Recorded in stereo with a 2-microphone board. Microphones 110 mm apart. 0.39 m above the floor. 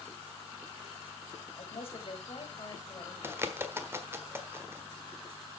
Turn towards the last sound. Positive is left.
turn(degrees=-20)  # may be behind; listen again after turning